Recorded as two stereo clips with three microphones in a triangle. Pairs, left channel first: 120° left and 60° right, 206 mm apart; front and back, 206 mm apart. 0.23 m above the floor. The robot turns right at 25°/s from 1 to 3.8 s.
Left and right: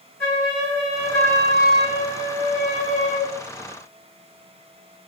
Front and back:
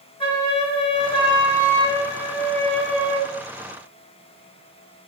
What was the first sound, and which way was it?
A flute, 50° left.